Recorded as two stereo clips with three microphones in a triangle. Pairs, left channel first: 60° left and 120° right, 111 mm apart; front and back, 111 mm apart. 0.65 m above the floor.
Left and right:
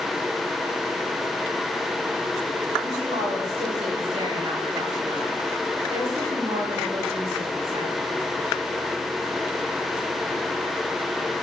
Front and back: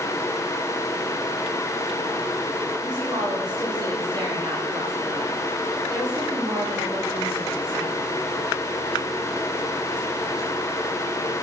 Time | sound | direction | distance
2.8 | a woman speaking | 130° right | 9.5 m